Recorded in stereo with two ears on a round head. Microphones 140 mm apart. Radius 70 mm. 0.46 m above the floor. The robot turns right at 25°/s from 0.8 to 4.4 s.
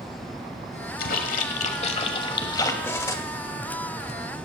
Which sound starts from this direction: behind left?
A splash, at 1.0 s.